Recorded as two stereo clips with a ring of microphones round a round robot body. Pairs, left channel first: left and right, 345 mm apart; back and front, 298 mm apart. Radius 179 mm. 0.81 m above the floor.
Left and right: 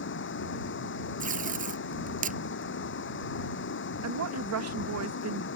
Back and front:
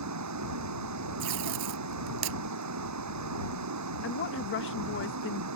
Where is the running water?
30° left.